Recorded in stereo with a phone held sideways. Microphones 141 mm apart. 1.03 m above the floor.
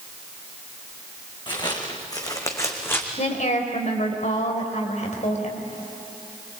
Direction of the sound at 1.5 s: 35° left (ahead or behind).